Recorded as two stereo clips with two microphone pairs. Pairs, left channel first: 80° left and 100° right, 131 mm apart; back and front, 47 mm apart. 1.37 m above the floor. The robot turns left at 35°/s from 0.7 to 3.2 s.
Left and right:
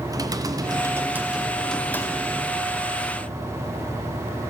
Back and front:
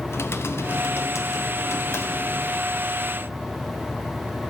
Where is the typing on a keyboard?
160° right, 0.7 m; by 2.6 s 135° left, 0.7 m.